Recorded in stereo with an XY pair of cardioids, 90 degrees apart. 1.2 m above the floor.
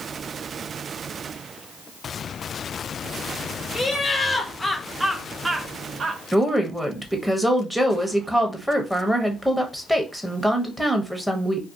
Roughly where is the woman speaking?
Ahead.